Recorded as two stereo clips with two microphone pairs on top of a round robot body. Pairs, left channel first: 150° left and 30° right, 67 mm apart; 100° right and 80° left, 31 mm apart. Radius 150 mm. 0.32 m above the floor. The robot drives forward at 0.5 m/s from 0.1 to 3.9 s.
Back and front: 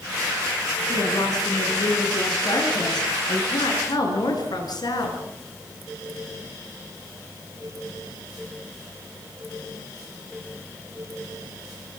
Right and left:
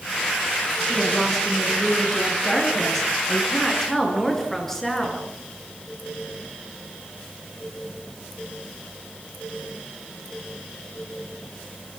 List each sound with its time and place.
0.9 s a woman speaking: 175° left, 6.5 m